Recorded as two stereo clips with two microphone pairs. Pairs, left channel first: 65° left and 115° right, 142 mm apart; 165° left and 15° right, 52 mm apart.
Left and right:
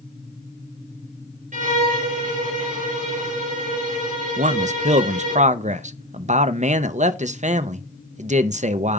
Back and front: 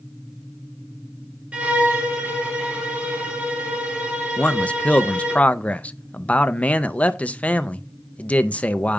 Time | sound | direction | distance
1.5 | a violin | 85° right | 2 m
4.4 | a man speaking | 145° right | 0.6 m